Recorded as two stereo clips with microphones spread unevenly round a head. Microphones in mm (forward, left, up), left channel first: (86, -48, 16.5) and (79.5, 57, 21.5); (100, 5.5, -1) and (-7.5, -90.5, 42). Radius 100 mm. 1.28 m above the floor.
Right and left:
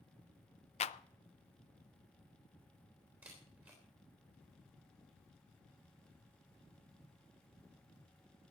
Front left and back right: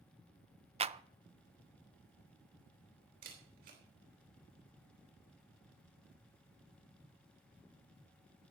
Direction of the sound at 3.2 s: 175° left.